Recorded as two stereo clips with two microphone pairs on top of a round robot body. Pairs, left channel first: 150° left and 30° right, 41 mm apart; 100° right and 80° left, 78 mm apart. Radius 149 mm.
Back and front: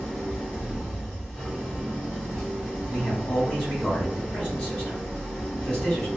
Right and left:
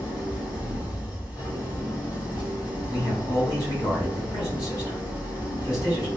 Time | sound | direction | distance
0.0 | an engine running | 125° right | 2.0 m
2.9 | a man speaking | 145° right | 2.0 m